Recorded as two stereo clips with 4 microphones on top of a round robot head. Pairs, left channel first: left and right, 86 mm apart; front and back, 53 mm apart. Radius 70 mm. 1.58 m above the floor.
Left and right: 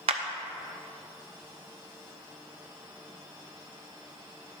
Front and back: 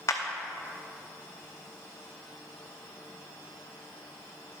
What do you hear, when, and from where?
0.1 s a clap: 55° right, 0.6 m